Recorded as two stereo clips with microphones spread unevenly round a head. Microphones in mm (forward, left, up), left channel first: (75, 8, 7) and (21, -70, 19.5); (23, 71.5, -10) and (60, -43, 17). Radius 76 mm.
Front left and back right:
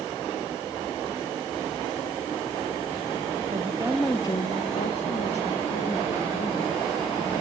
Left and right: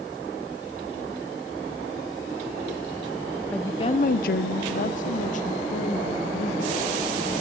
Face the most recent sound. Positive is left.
turn(degrees=75)